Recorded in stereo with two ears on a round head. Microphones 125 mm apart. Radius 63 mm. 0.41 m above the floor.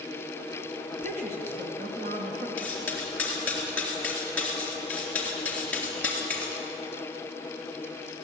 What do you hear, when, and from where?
0.9 s a woman speaking: 55° right (ahead or behind), 4 m
2.6 s cutlery clinking: 15° left (ahead or behind), 3.5 m